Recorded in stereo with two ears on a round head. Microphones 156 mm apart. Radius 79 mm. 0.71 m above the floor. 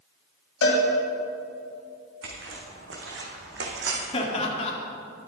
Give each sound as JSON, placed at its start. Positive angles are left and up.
{"t": 0.6, "sound": "a cowbell", "side_deg": 75, "distance_m": 3.0}
{"t": 2.2, "sound": "footsteps", "side_deg": -75, "distance_m": 3.5}
{"t": 4.1, "sound": "laughter", "side_deg": 35, "distance_m": 1.9}